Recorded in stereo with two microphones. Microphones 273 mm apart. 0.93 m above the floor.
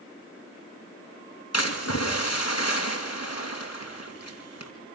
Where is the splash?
65° left (ahead or behind), 2.5 m.